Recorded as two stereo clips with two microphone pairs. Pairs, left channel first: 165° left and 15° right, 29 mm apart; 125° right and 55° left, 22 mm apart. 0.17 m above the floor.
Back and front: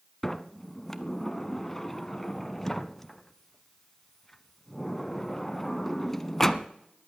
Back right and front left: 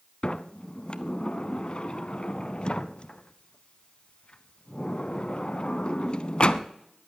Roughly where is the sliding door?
Behind right.